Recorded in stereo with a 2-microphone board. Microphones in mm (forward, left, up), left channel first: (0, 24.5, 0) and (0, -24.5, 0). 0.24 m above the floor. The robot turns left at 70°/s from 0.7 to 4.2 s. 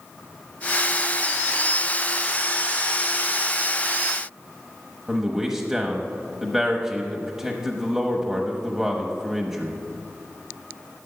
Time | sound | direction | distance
5.1 | a man speaking | 10° right (ahead or behind) | 1.0 m